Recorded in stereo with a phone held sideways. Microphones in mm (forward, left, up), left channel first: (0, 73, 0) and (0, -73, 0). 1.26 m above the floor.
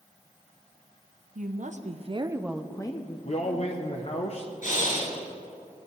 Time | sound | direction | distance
1.4 | a woman speaking | 65° right (ahead or behind) | 1.1 m
3.2 | a man speaking | 50° left (ahead or behind) | 0.8 m
4.6 | breathing | 60° left (ahead or behind) | 3.5 m